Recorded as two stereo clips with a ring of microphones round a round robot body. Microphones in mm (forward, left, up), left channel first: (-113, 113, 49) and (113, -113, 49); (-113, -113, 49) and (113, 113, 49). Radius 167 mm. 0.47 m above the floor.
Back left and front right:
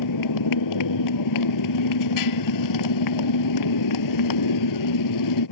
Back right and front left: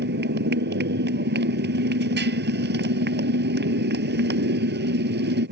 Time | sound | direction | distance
0.0 | a motorcycle | 105° left | ?